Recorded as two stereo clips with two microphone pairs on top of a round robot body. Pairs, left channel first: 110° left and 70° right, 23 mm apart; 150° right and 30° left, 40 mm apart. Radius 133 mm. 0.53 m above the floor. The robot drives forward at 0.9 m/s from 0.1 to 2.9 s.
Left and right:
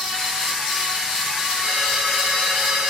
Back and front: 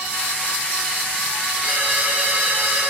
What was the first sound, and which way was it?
A ringtone, 15° right.